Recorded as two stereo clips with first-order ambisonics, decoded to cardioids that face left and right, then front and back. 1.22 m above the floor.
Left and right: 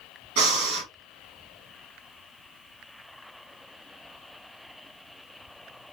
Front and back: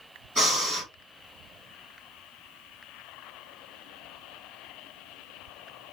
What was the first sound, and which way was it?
Breathing, 100° right.